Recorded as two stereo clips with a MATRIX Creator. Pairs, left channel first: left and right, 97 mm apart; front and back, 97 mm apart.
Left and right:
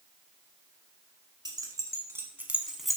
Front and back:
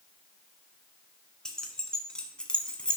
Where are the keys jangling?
80° right, 1.0 m; by 3.0 s 20° left, 0.7 m.